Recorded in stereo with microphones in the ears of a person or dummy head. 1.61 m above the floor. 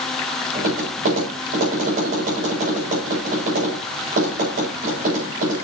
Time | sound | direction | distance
0.6 | tapping | 45° right (ahead or behind) | 8 m